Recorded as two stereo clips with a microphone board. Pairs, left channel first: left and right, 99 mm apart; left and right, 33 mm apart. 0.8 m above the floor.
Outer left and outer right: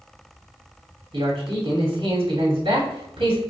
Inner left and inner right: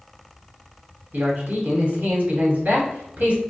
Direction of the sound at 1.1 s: 65° right (ahead or behind).